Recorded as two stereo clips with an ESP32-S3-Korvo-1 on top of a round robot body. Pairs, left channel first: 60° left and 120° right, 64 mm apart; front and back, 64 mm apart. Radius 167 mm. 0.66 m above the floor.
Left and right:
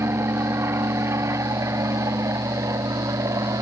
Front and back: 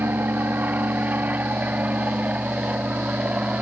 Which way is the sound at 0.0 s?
135° right.